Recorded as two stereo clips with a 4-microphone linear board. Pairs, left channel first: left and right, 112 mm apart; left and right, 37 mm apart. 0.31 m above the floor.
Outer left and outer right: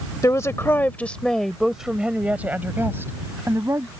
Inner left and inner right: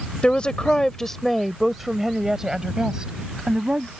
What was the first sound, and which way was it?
A woman speaking, 30° left (ahead or behind).